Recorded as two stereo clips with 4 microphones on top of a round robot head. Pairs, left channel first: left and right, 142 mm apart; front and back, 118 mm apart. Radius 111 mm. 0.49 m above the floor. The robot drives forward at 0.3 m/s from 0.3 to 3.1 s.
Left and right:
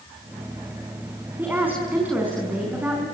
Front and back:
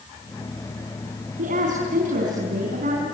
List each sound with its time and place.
1.4 s a woman speaking: 165° right, 4.5 m; by 3.0 s 170° right, 5 m